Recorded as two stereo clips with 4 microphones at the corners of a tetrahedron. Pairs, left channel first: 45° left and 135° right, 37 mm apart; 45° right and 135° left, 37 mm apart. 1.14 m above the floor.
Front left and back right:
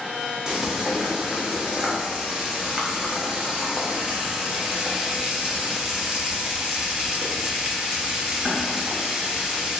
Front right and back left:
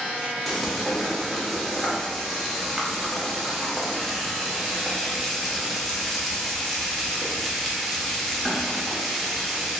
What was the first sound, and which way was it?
Frying, 130° right.